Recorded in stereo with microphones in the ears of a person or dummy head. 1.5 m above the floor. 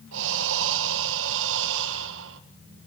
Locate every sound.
0.1 s breathing: 75° right (ahead or behind), 1.5 m